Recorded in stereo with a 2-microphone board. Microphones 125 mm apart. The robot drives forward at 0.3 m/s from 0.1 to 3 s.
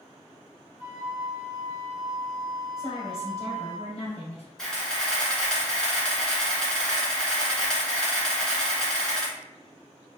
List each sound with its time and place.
0.8 s a flute: 35° left (ahead or behind), 1.5 m; by 3.8 s 30° left (ahead or behind), 1.6 m
2.8 s a woman speaking: 45° left (ahead or behind), 1.8 m
4.6 s a camera shutter: 5° left (ahead or behind), 1.0 m